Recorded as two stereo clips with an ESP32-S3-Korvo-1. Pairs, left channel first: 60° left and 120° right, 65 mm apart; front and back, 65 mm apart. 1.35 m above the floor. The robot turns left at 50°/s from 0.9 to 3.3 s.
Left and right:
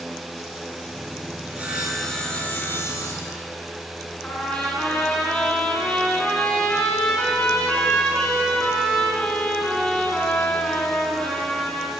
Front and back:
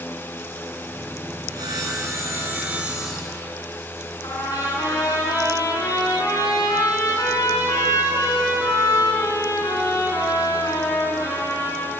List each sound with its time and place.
1.5 s sawing: 175° left, 9.5 m; by 3.5 s 85° left, 9.5 m
4.2 s a trumpet: 15° right, 6 m